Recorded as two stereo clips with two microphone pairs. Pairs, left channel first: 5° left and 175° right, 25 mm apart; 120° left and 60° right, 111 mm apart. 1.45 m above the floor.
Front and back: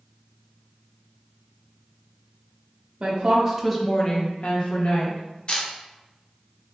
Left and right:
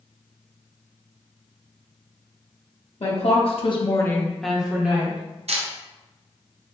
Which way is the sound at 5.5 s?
45° right.